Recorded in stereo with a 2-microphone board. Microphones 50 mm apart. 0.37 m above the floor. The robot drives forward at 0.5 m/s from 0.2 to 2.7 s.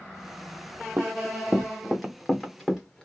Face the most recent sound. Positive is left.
turn(degrees=10)  # may be behind; listen again after turning